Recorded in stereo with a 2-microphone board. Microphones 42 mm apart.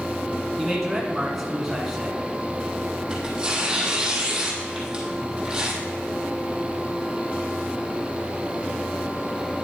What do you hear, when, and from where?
0.6 s a man speaking: 5° right (ahead or behind), 1.5 m
3.1 s tearing paper: 20° right (ahead or behind), 1.9 m